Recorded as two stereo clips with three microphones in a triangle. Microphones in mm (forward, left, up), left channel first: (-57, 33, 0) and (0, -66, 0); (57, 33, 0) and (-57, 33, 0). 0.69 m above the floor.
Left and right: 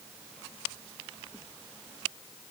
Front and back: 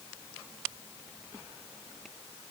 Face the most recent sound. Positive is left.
No sound to turn to.